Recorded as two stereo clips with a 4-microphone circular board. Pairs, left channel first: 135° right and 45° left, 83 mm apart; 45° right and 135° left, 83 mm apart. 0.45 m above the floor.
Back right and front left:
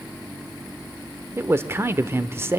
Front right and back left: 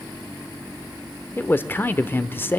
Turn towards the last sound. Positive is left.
turn(degrees=5)